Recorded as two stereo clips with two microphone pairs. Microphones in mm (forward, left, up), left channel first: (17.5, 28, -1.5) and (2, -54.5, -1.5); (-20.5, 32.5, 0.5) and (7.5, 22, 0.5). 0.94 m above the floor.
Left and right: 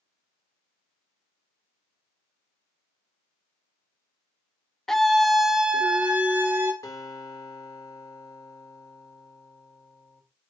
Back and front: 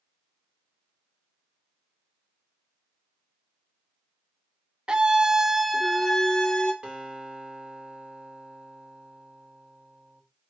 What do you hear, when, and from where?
4.9 s a scream: straight ahead, 1.0 m; by 6.7 s 155° right, 1.1 m
6.8 s a guitar: 35° left, 3.5 m